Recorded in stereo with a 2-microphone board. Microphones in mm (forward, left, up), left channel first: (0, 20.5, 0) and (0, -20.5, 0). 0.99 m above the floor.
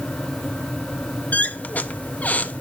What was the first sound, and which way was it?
A squeak, 35° left (ahead or behind).